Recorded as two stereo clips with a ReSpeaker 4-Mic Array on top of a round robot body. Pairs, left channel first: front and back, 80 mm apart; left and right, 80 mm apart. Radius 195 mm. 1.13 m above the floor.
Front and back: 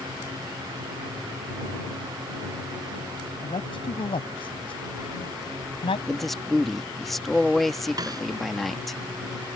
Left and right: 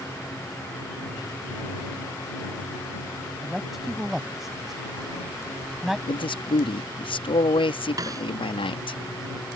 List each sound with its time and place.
3.4 s a man speaking: 5° right
6.1 s a man speaking: 90° left
8.0 s a snare drum: 135° right